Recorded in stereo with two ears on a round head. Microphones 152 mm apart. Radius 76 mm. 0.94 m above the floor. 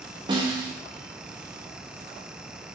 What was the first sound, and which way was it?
A snare drum, 30° right (ahead or behind).